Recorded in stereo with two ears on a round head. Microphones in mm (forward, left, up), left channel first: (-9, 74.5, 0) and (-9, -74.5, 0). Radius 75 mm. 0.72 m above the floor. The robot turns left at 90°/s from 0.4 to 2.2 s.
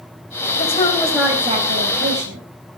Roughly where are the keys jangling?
I don't hear keys jangling.